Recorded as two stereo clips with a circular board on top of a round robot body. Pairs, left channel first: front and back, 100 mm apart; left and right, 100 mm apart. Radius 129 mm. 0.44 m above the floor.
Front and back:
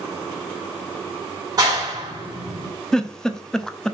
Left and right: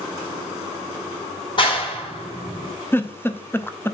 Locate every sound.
1.6 s a clap: 125° left, 5 m
2.9 s a giggle: 75° left, 1.1 m